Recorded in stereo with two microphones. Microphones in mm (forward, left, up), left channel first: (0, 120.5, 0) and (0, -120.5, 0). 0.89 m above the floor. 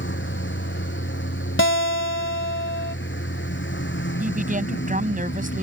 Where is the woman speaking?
35° right (ahead or behind).